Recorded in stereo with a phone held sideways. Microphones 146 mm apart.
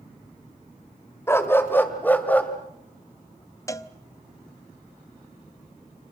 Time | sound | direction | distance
1.3 | a dog barking | 15° left (ahead or behind) | 1.7 m
3.7 | a cowbell | 20° left (ahead or behind) | 0.7 m